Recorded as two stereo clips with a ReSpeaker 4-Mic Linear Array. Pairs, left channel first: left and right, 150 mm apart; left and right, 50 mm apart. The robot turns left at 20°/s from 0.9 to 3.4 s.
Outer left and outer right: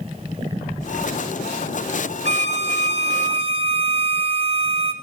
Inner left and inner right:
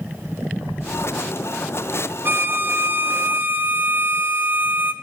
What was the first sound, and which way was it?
A violin, 45° right (ahead or behind).